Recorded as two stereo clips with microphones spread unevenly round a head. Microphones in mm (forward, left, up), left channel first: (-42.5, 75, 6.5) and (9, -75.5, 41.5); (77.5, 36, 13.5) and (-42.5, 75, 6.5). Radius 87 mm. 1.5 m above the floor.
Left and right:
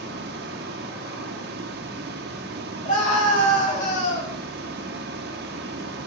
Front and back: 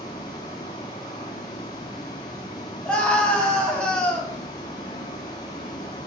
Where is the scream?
65° left, 3 m.